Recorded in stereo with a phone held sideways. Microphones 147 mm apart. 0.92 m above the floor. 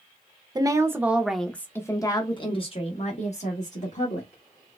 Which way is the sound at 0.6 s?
25° right (ahead or behind).